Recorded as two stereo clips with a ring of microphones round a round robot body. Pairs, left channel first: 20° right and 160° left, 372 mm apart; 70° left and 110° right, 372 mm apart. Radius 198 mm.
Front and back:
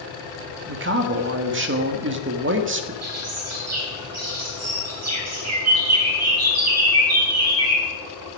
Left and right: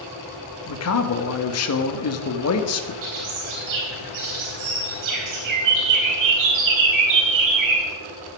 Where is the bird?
150° right, 4 m.